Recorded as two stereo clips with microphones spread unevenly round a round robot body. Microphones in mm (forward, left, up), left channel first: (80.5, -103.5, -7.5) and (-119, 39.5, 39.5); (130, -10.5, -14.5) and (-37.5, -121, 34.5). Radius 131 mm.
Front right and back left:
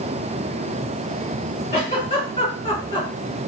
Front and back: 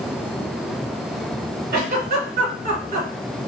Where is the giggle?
100° right, 1.8 m.